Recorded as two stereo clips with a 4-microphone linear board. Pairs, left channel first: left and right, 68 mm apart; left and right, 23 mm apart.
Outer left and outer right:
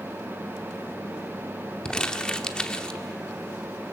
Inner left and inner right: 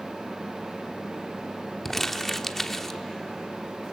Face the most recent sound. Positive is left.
turn(degrees=15)  # may be behind; listen again after turning